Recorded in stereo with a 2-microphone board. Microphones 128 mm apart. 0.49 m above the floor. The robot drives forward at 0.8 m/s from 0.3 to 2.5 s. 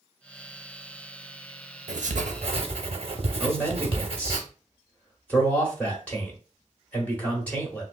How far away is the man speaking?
About 1.1 m.